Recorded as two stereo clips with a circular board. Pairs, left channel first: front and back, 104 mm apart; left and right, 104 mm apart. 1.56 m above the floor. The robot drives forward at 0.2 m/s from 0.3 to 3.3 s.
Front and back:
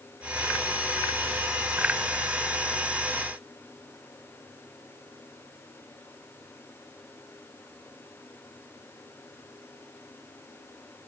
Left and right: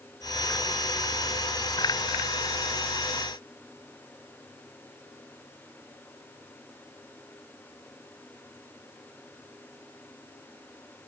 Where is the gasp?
No gasp in this recording.